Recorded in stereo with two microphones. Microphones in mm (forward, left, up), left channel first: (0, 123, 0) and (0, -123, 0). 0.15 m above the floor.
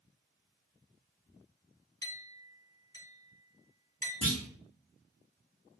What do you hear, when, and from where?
2.0 s a clink: 15° left (ahead or behind), 1.2 m
4.2 s a clunk: 80° left, 1.9 m